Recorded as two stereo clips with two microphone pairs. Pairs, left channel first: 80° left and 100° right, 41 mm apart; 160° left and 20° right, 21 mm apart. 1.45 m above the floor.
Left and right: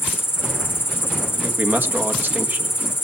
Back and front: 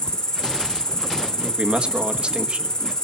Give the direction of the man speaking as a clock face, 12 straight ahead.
2 o'clock.